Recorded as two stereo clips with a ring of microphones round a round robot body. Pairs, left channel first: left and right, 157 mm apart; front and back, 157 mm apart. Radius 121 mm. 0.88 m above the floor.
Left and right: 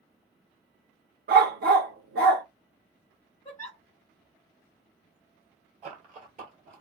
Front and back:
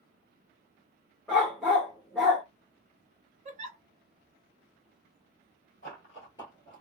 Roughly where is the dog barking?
Right.